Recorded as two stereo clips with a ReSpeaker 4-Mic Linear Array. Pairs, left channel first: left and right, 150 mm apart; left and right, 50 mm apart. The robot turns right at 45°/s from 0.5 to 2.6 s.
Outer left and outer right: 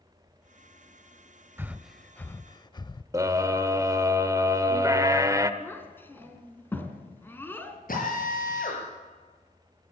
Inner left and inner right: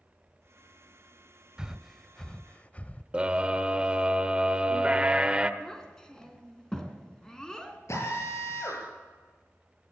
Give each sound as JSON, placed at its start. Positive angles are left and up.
{"t": 1.6, "sound": "breathing", "side_deg": -15, "distance_m": 0.5}
{"t": 3.1, "sound": "a scream", "side_deg": -20, "distance_m": 1.2}
{"t": 5.6, "sound": "a child speaking", "side_deg": 15, "distance_m": 3.0}
{"t": 7.9, "sound": "a drill", "side_deg": 65, "distance_m": 7.5}